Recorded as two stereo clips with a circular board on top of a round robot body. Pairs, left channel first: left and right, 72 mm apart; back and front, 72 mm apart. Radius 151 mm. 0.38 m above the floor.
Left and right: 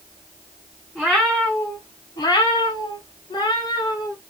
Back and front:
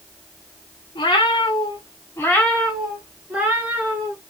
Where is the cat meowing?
175° right, 0.7 m; by 4.2 s 65° left, 1.2 m.